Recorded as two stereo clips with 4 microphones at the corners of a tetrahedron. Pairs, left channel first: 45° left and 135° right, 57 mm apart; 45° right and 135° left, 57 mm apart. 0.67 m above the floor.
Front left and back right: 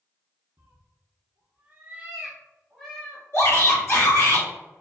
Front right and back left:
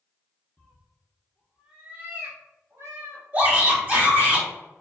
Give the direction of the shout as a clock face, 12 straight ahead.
9 o'clock.